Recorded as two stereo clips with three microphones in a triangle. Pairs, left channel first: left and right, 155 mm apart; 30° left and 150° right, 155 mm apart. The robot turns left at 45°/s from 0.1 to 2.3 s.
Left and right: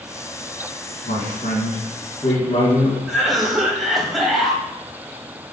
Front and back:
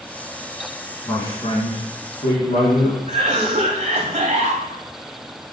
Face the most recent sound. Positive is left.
turn(degrees=180)